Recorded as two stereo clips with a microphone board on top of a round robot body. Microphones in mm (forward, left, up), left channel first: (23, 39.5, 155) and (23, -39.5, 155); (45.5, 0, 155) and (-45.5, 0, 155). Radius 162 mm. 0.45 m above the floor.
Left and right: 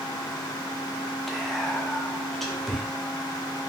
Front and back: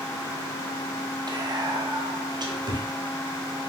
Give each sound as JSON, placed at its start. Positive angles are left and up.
{"t": 1.3, "sound": "whispering", "azimuth_deg": 175, "distance_m": 1.2}